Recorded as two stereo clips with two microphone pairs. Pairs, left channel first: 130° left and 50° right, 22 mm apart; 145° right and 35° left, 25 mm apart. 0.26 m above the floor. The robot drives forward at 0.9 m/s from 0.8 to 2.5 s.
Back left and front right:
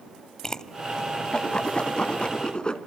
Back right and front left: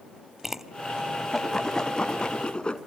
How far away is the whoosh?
About 0.8 m.